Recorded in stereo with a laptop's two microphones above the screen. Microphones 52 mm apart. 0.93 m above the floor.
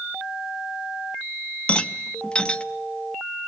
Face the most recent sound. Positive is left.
turn(degrees=20)  # may be behind; listen again after turning